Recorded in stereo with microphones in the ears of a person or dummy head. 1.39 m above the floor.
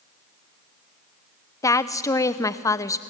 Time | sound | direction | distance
1.6 | a woman speaking | 20° left (ahead or behind) | 0.7 m